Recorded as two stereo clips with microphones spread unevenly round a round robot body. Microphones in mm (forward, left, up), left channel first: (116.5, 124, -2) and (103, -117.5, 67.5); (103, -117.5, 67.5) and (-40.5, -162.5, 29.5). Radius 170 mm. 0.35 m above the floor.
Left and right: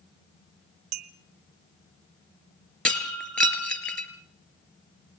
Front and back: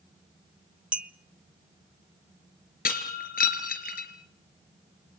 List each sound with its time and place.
0.9 s a clink: 90° right, 0.9 m
2.9 s breaking glass: straight ahead, 3.5 m